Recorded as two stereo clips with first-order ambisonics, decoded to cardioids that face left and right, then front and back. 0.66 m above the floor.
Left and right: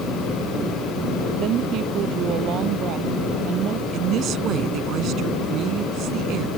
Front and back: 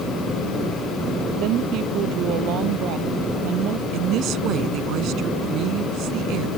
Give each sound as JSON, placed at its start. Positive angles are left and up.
{"t": 1.4, "sound": "a woman speaking", "azimuth_deg": -140}
{"t": 3.9, "sound": "a woman speaking", "azimuth_deg": -140}